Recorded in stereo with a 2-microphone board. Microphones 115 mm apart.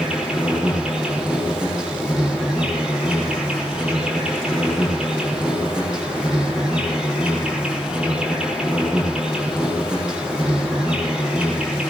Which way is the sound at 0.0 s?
10° right (ahead or behind).